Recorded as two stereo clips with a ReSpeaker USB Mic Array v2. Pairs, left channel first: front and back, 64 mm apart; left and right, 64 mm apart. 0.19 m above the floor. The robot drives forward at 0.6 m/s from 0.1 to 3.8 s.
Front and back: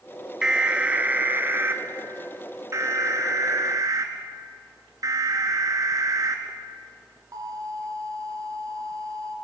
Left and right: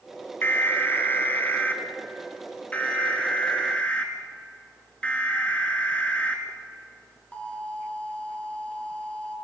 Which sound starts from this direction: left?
An alarm, at 0.4 s.